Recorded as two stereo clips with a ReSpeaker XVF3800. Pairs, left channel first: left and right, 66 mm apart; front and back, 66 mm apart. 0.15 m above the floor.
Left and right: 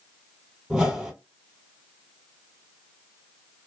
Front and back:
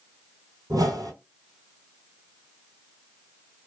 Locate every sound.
0.7 s a whoosh: 170° right, 1.1 m